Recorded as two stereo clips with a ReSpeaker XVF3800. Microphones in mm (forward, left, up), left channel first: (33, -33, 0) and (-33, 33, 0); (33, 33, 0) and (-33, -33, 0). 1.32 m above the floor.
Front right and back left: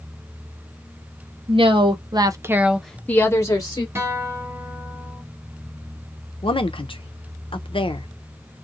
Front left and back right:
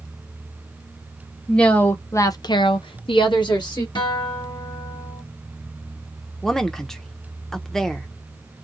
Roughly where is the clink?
I don't hear a clink.